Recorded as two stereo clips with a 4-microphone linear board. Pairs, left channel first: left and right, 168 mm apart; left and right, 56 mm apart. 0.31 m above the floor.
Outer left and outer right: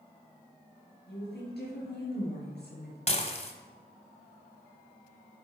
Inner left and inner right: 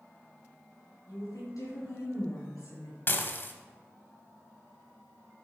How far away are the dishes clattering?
About 1.1 m.